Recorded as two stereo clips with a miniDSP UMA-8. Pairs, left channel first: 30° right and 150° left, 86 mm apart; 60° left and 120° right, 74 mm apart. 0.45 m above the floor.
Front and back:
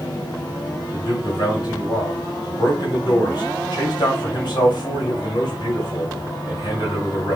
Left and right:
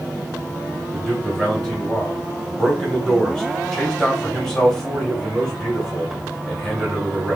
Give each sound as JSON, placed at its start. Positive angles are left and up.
{"t": 0.9, "sound": "a man speaking", "azimuth_deg": -20, "distance_m": 1.5}